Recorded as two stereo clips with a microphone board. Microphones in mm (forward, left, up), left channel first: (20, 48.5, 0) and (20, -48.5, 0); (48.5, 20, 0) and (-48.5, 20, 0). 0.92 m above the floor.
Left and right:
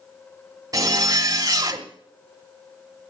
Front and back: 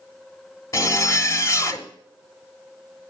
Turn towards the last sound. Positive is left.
turn(degrees=-50)